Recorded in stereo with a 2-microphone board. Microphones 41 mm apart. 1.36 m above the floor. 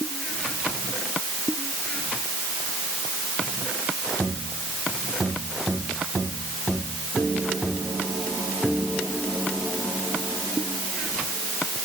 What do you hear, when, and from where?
Only background noise.